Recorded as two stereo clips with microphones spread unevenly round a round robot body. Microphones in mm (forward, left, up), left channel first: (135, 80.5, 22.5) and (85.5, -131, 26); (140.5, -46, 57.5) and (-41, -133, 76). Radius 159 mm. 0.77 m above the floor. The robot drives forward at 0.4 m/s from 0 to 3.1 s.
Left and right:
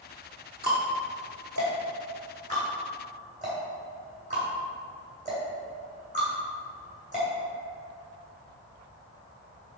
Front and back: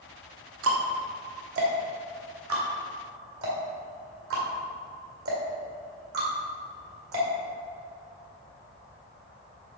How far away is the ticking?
About 1.1 m.